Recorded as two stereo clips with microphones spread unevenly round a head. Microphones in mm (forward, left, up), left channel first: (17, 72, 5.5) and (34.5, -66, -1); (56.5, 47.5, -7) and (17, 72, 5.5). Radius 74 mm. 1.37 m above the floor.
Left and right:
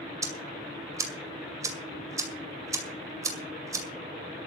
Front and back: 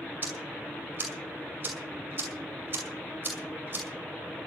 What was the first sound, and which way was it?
Ticking, 155° right.